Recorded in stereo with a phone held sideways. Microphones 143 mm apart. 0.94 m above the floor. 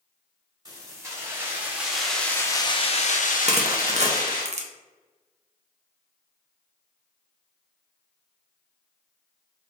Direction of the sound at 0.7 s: 25° right (ahead or behind).